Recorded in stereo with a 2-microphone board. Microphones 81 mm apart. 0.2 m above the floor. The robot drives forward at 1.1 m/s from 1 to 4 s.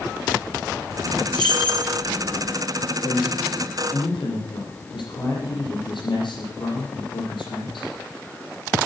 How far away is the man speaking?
About 7 m.